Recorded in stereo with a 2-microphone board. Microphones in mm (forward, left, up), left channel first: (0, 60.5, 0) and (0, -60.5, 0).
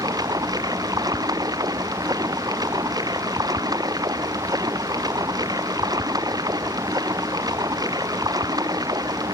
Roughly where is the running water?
Right.